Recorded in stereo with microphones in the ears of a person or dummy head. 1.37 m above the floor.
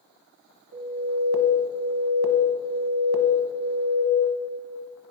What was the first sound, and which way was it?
An alarm, 80° right.